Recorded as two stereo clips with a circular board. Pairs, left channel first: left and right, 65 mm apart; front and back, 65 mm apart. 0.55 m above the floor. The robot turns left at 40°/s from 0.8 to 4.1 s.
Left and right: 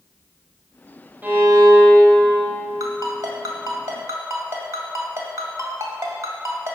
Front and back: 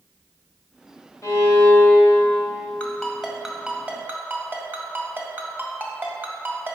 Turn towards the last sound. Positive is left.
turn(degrees=-125)